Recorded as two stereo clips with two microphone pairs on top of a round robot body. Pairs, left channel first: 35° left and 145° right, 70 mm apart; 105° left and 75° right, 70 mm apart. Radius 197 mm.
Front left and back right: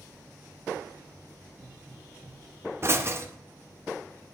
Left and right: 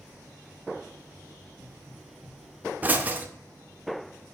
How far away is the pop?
About 1.3 m.